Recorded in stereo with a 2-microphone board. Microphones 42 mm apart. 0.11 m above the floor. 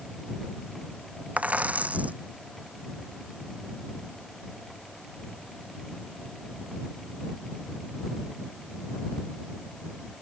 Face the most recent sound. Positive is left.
turn(degrees=-35)  # may be behind; listen again after turning